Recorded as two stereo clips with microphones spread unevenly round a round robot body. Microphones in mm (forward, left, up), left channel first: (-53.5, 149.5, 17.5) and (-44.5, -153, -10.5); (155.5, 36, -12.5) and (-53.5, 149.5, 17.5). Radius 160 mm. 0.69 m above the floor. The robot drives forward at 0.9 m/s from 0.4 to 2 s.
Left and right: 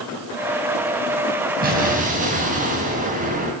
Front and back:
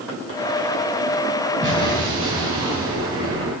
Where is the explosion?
150° right, 2.5 m; by 3.5 s 155° right, 3 m.